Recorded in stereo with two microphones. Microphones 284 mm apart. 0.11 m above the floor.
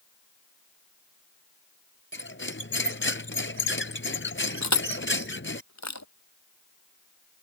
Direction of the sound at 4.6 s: 70° left (ahead or behind).